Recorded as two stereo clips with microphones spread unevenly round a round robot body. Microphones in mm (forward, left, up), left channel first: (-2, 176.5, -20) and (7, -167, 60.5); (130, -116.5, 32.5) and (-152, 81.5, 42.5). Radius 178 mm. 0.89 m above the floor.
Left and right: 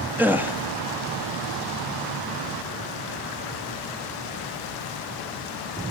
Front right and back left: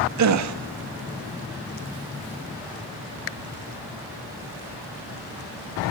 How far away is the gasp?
About 1.9 m.